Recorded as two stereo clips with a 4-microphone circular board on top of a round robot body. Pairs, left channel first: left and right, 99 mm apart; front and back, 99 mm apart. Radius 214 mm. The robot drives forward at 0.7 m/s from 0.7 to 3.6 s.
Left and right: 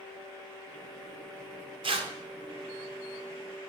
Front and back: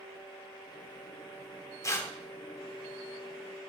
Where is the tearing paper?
60° right, 1.2 m; by 2.1 s 70° right, 1.1 m.